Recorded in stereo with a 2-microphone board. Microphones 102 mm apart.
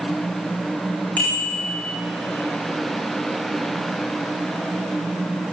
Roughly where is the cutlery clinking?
No cutlery clinking in this recording.